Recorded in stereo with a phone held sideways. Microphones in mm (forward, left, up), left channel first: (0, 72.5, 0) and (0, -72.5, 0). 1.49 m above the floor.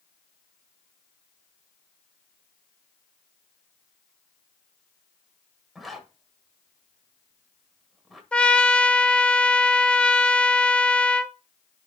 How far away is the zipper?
About 1.4 m.